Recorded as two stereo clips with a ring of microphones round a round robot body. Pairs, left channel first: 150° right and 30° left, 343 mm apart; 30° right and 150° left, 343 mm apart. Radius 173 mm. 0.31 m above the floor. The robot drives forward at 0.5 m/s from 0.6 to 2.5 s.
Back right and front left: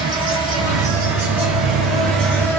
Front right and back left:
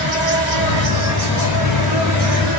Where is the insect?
105° left, 2.5 m; by 2.6 s 125° left, 3 m.